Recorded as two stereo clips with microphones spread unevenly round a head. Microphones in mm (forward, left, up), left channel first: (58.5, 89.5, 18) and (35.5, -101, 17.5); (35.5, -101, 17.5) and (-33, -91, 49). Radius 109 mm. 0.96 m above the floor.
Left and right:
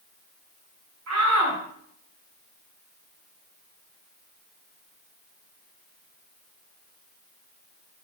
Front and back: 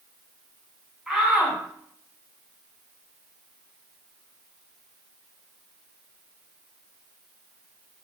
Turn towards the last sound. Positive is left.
turn(degrees=-105)